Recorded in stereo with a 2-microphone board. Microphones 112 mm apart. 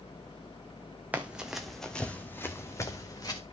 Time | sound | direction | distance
1.1 | running footsteps | 15° right (ahead or behind) | 1.2 m